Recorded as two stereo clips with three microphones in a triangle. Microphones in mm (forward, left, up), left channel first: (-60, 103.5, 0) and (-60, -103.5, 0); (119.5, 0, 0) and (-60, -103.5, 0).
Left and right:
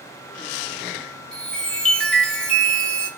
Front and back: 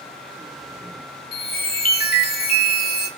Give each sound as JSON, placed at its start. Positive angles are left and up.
{"t": 1.3, "sound": "a chime", "azimuth_deg": 5, "distance_m": 0.5}